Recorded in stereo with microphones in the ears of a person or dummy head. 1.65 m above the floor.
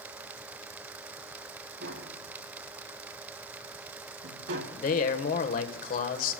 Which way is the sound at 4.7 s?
45° left (ahead or behind).